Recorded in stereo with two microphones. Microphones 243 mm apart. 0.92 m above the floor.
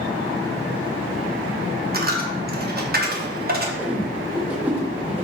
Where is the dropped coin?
40° right (ahead or behind), 0.6 m.